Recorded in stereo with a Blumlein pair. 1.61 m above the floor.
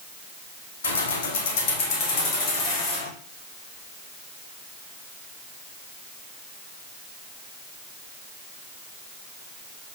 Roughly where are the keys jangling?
Ahead left.